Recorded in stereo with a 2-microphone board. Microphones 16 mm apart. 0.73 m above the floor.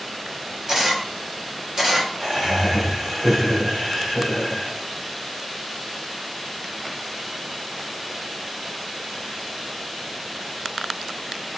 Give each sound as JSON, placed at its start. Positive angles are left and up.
{"t": 0.7, "sound": "a camera shutter", "side_deg": -40, "distance_m": 1.5}
{"t": 2.2, "sound": "laughter", "side_deg": -50, "distance_m": 2.5}